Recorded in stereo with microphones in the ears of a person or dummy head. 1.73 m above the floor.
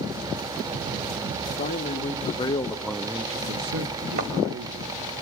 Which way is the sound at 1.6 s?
45° left (ahead or behind).